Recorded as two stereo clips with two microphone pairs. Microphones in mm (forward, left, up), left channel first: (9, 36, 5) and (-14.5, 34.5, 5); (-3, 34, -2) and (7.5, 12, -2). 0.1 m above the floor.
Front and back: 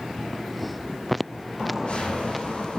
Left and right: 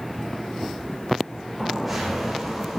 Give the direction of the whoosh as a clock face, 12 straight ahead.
11 o'clock.